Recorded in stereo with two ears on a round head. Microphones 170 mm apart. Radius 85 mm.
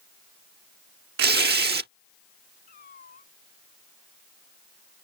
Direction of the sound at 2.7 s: 50° left (ahead or behind).